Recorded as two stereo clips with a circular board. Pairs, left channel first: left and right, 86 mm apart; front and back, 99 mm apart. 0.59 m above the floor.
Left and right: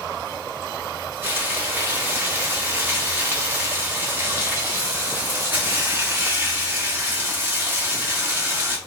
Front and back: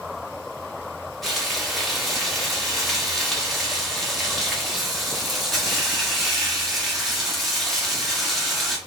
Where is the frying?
85° right, 1.1 m.